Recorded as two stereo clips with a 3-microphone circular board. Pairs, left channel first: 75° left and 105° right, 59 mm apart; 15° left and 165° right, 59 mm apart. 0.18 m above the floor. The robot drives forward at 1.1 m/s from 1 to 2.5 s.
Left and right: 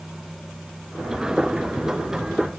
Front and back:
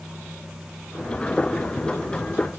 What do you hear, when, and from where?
Only background noise.